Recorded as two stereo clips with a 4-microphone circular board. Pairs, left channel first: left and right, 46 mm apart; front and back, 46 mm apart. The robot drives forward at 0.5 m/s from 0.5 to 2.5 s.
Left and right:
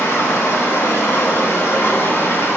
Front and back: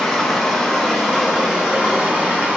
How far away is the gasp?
I don't hear a gasp.